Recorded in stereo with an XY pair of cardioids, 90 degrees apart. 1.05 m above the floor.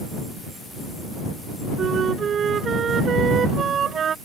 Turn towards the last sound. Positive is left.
turn(degrees=-60)